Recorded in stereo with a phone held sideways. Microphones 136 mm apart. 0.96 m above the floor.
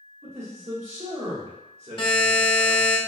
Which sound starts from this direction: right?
A man speaking, at 0.2 s.